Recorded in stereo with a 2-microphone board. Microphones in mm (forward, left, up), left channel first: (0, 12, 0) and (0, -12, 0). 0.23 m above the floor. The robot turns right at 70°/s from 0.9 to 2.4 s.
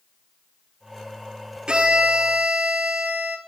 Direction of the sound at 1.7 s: 140° right.